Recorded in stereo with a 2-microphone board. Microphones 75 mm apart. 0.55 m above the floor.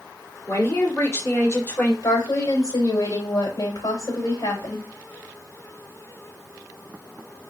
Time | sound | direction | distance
0.5 | a man speaking | 50° left (ahead or behind) | 1.9 m
2.0 | a woman speaking | 55° left (ahead or behind) | 3 m